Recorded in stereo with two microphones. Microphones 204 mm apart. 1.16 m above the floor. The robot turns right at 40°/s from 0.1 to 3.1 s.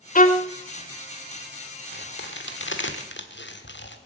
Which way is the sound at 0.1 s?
40° left (ahead or behind).